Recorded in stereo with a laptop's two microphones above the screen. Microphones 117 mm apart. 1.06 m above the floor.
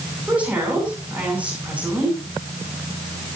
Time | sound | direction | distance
0.3 | a woman speaking | 10° right (ahead or behind) | 9 m